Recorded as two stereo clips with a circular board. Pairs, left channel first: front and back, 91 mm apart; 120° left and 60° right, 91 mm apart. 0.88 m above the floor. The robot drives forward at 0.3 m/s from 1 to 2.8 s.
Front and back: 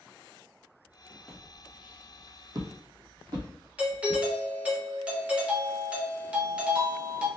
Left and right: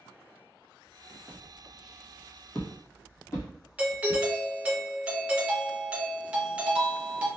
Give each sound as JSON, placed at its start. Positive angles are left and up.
{"t": 1.3, "sound": "footsteps", "azimuth_deg": -95, "distance_m": 1.1}
{"t": 3.8, "sound": "a doorbell", "azimuth_deg": -120, "distance_m": 0.7}